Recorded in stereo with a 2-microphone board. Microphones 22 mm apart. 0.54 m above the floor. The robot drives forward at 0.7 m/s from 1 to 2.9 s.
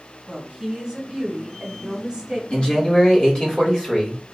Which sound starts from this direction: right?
A woman speaking, at 0.3 s.